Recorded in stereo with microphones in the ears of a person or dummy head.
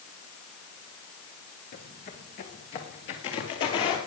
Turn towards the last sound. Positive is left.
turn(degrees=25)  # may be behind; listen again after turning